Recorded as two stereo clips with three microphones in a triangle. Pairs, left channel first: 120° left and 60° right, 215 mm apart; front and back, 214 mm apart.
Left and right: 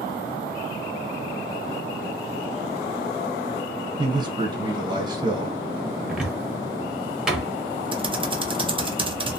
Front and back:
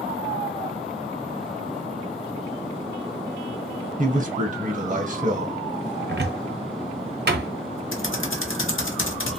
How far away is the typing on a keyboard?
About 0.6 m.